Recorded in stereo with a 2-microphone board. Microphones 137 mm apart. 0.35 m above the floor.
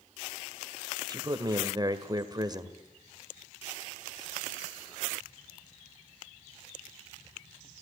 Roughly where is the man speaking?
Right.